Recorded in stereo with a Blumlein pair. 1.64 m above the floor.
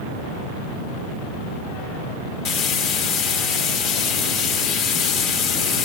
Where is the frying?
35° left, 1.5 m.